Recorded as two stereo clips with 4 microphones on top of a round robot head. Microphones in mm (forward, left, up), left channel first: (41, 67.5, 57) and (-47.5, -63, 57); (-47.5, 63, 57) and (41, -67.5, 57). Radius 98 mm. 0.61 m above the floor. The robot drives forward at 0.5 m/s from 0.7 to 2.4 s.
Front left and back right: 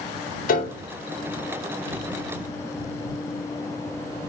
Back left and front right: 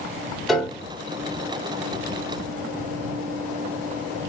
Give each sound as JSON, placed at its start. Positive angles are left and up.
{"t": 0.5, "sound": "a piano", "azimuth_deg": 35, "distance_m": 1.0}